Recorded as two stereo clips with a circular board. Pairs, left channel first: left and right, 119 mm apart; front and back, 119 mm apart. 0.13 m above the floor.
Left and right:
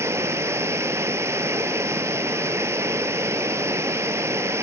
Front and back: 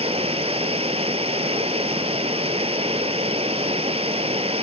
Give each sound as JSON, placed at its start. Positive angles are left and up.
{"t": 0.0, "sound": "running water", "azimuth_deg": -155, "distance_m": 0.9}